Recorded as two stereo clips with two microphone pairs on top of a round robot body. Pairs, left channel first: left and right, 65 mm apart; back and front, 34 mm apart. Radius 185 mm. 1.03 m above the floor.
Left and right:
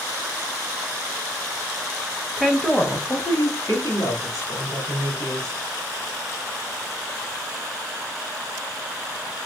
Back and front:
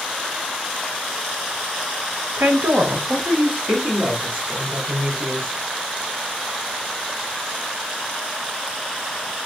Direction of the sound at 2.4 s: 5° right.